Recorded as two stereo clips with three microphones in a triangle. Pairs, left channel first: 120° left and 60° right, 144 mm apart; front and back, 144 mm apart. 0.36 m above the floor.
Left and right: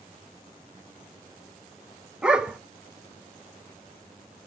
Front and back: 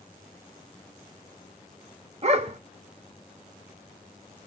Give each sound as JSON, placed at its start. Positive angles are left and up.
{"t": 2.2, "sound": "a dog barking", "azimuth_deg": -145, "distance_m": 0.7}